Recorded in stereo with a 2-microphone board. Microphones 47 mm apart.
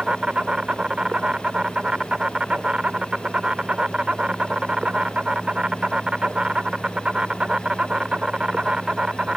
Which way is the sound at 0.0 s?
25° right (ahead or behind).